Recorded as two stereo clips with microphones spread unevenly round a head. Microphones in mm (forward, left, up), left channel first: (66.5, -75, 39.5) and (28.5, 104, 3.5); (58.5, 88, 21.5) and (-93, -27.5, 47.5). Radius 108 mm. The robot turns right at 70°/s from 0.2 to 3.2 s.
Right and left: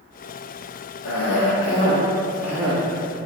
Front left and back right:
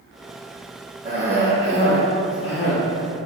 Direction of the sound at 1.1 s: 80° right.